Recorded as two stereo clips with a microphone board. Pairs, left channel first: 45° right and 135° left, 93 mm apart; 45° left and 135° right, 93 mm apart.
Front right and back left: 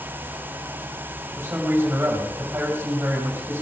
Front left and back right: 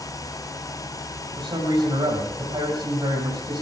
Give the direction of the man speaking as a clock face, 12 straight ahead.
5 o'clock.